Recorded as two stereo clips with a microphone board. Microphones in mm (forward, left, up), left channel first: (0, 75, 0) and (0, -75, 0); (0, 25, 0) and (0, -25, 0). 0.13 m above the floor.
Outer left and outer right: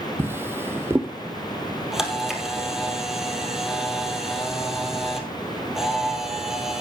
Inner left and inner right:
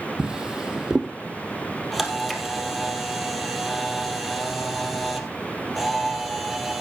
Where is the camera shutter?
5° right (ahead or behind), 2 m.